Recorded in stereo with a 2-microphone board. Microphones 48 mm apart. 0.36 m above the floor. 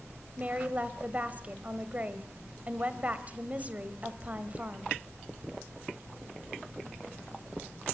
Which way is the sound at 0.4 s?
30° right (ahead or behind).